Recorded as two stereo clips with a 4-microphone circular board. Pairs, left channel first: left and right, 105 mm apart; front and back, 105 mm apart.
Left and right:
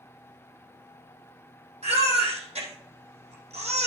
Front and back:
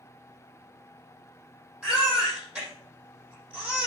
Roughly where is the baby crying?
Right.